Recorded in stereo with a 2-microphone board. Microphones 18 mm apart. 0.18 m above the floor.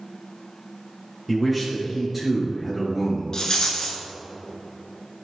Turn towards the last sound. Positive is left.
turn(degrees=40)  # may be behind; listen again after turning